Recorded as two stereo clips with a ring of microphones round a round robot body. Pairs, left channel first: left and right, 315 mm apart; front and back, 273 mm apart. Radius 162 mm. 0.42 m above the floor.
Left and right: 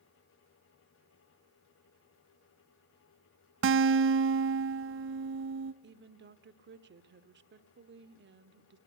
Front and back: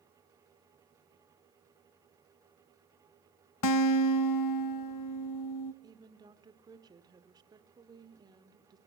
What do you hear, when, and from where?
3.6 s a guitar: 35° right, 0.9 m
5.8 s a woman speaking: 115° right, 1.4 m